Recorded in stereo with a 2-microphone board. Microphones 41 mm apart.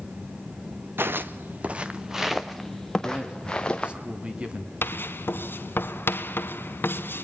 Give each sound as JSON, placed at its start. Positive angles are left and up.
{"t": 1.0, "sound": "footsteps", "side_deg": -65, "distance_m": 1.1}
{"t": 3.0, "sound": "a man speaking", "side_deg": -25, "distance_m": 2.5}
{"t": 4.8, "sound": "writing", "side_deg": 60, "distance_m": 1.4}